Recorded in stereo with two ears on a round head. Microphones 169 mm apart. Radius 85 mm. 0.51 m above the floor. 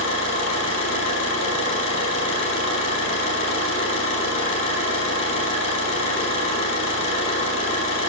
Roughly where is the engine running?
Left.